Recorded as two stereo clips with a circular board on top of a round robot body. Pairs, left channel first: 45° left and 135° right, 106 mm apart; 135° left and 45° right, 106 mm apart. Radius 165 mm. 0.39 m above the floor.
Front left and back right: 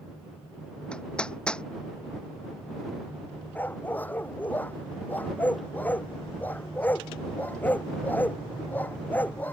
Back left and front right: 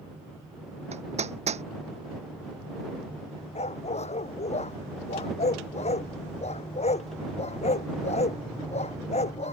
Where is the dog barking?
120° left.